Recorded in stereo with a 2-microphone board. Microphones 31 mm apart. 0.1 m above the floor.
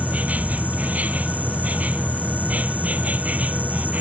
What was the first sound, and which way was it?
An insect, 50° right (ahead or behind).